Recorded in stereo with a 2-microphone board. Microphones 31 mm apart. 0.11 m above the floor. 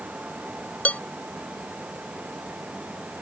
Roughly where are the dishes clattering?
Left.